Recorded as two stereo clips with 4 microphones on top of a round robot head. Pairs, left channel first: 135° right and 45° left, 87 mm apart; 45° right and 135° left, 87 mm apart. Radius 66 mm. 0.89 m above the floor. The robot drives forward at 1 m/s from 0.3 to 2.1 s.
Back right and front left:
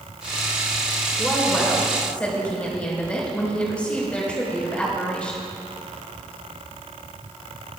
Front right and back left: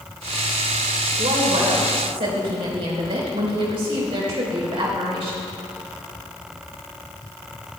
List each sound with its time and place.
1.2 s a woman speaking: 140° left, 4 m; by 5.4 s 150° left, 4.5 m